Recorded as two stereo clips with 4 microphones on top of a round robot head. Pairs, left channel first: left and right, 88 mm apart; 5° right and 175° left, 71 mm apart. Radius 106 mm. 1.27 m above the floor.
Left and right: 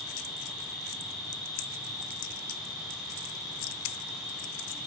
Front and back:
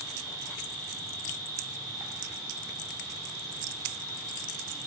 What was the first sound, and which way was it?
An insect, straight behind.